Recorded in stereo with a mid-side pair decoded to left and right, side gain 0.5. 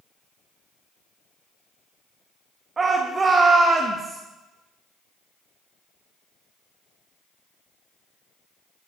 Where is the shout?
35° right, 1.6 m.